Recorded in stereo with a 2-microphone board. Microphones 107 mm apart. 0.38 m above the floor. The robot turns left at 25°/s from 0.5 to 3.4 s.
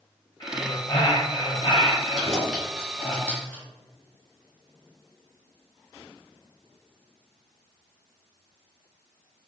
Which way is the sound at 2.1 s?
5° right (ahead or behind).